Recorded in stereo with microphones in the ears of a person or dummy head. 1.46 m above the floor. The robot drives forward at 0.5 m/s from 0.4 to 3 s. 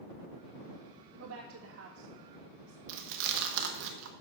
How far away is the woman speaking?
About 1.8 m.